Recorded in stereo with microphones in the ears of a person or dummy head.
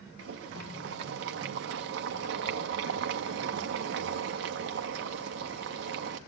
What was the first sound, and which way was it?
Boiling, 70° right (ahead or behind).